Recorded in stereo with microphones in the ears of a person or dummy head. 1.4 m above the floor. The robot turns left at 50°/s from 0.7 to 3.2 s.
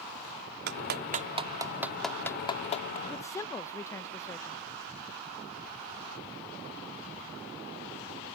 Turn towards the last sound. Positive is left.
turn(degrees=20)  # may be behind; listen again after turning